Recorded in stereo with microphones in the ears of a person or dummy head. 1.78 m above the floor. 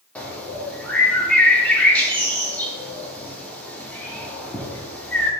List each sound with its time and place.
0.1 s a bird: 5° left (ahead or behind), 0.6 m